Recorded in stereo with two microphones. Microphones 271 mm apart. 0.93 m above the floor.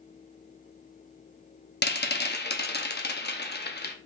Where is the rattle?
40° left (ahead or behind), 0.6 m.